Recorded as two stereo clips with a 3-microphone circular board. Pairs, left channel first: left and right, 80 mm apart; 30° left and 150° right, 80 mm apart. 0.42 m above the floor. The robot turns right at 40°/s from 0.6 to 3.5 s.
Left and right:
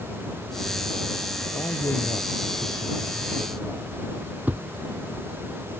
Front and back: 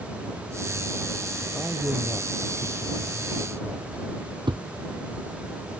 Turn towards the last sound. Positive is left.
turn(degrees=-160)